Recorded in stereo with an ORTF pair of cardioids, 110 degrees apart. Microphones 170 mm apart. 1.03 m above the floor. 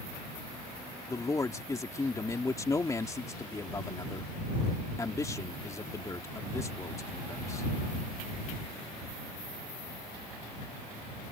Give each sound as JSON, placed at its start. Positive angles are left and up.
{"t": 1.1, "sound": "a man speaking", "azimuth_deg": 20}